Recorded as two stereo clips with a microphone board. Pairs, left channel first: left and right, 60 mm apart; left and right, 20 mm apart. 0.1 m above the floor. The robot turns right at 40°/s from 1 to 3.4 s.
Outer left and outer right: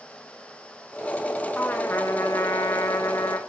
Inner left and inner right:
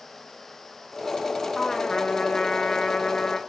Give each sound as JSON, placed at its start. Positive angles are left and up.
{"t": 1.6, "sound": "a trumpet", "azimuth_deg": 35, "distance_m": 4.5}